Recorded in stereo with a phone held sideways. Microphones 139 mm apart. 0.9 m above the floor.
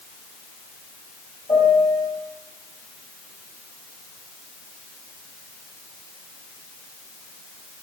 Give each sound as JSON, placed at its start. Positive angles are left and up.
{"t": 1.5, "sound": "a piano", "side_deg": 30, "distance_m": 4.0}